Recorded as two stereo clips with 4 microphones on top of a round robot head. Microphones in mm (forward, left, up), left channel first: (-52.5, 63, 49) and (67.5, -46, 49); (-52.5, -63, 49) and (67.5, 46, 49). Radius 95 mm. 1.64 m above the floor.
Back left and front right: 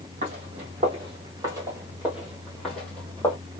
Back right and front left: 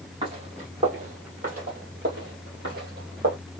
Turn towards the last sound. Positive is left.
turn(degrees=65)